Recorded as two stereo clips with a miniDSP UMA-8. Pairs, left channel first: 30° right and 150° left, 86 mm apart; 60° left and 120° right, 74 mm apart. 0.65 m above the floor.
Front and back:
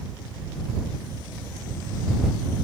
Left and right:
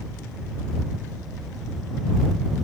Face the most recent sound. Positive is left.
No sound to turn to.